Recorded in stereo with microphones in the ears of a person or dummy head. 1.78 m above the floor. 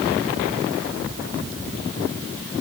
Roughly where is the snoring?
No snoring in this recording.